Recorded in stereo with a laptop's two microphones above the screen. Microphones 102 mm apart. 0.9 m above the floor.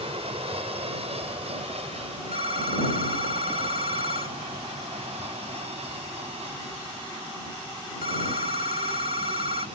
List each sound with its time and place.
0.0 s an aircraft: 65° right (ahead or behind); by 9.8 s 75° right (ahead or behind)
2.3 s a phone ringing: 65° right (ahead or behind)